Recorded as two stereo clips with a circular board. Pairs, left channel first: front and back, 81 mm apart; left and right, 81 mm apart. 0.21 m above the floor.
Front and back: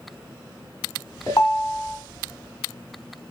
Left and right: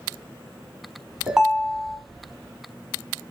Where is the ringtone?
15° right, 1.0 m.